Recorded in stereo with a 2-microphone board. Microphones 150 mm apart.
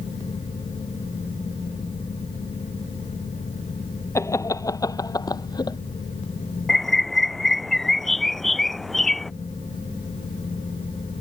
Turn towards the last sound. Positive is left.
turn(degrees=0)  # may be behind; listen again after turning